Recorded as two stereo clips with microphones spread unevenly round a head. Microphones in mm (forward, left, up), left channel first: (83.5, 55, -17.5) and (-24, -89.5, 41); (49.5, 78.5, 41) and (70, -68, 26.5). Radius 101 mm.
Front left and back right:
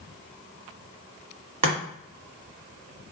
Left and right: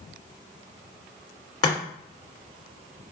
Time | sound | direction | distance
1.6 | chopping | 165° left | 1.1 m